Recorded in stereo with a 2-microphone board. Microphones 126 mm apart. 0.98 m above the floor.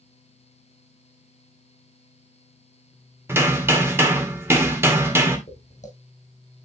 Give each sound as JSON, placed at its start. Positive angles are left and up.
{"t": 3.3, "sound": "hammering", "side_deg": -20, "distance_m": 1.8}
{"t": 5.5, "sound": "footsteps", "side_deg": 65, "distance_m": 2.5}